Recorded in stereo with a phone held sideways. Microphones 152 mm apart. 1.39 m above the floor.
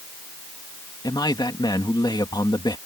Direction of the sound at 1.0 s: 30° left (ahead or behind).